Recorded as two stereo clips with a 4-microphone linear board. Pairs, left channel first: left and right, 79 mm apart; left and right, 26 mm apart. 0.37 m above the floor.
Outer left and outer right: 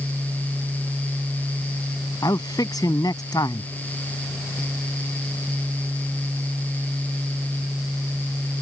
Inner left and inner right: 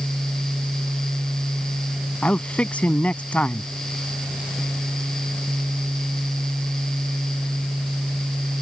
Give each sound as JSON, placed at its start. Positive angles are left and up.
{"t": 2.2, "sound": "a man speaking", "side_deg": 60}